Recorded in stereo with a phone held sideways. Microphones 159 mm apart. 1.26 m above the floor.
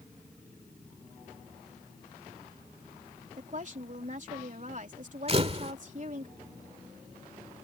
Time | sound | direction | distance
3.4 | a woman speaking | 55° right (ahead or behind) | ?
5.3 | a camera shutter | 40° right (ahead or behind) | ?